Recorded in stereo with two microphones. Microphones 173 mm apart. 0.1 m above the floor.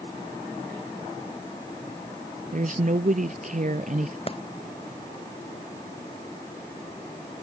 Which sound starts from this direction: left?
A clap, at 4.3 s.